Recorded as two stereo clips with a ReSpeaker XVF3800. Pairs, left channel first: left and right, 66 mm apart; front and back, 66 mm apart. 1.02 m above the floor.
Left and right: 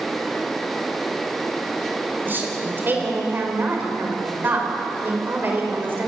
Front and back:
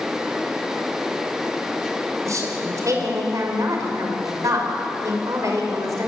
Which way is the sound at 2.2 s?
145° right.